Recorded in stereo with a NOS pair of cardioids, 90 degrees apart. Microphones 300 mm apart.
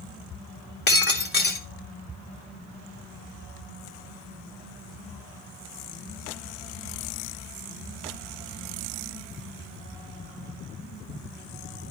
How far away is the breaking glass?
About 2.5 m.